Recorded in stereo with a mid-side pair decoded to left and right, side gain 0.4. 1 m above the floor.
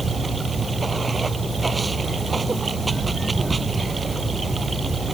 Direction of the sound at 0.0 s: 25° right.